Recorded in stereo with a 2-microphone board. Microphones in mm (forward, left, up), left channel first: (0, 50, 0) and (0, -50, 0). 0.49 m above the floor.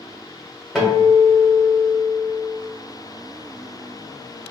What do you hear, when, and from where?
0.8 s a guitar: centre (ahead or behind), 1.1 m